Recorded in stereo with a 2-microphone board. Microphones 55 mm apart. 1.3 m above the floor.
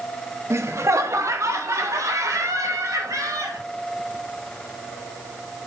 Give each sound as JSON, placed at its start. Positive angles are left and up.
{"t": 0.5, "sound": "laughter", "side_deg": -55, "distance_m": 0.9}